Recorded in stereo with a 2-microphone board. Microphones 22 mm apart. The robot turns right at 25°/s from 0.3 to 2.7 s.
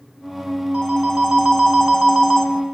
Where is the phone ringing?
60° right, 2.5 m; by 2.5 s 15° right, 2.5 m.